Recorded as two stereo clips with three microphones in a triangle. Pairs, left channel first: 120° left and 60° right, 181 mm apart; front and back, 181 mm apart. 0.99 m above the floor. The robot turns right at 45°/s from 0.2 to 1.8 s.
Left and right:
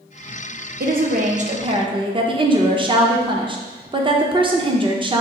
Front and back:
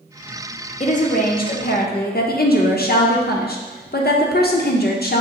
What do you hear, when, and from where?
0.8 s a woman speaking: 45° right, 0.7 m; by 5.2 s straight ahead, 0.7 m